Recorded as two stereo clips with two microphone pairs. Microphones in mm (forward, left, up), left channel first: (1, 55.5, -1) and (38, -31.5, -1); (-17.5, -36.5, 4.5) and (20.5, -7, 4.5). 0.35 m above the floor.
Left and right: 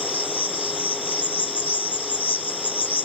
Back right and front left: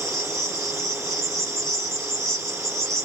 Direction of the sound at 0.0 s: 150° left.